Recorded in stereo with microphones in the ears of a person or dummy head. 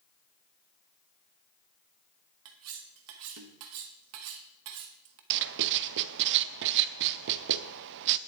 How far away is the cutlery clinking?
About 1.1 m.